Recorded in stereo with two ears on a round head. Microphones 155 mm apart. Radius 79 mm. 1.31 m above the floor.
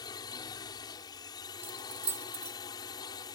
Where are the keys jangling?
15° right (ahead or behind).